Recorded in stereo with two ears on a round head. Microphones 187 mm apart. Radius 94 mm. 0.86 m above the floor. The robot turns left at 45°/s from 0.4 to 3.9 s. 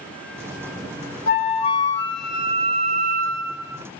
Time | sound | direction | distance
1.3 | a flute | 45° left | 0.6 m